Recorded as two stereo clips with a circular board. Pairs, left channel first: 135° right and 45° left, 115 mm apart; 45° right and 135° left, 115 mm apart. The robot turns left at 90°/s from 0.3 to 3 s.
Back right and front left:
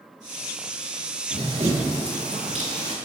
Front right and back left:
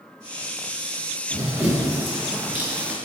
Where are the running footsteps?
80° left, 1.2 m; by 3.0 s 50° left, 0.8 m.